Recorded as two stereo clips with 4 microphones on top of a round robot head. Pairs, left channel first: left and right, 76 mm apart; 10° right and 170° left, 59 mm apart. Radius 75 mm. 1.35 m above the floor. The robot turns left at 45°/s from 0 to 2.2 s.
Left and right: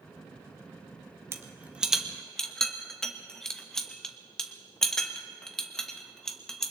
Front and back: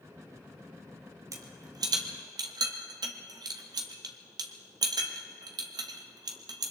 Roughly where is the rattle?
Behind right.